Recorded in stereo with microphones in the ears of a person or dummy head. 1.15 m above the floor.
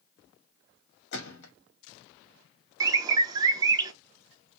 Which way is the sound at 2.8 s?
20° right (ahead or behind).